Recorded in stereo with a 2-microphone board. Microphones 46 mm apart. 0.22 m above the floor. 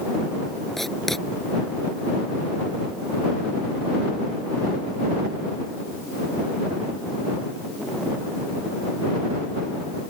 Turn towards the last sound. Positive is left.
turn(degrees=5)  # may be behind; listen again after turning